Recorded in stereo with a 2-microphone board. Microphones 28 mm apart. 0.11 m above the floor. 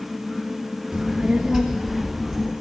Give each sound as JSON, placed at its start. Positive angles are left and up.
{"t": 0.9, "sound": "a child speaking", "side_deg": -40, "distance_m": 1.2}